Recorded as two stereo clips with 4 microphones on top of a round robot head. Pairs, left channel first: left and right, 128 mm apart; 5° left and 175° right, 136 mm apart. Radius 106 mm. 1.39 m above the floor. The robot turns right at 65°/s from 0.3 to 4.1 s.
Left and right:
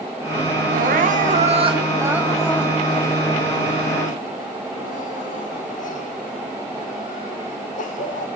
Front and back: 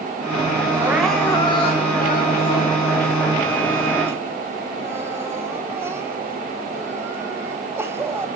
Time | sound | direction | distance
0.7 | crying | 105° right | 1.9 m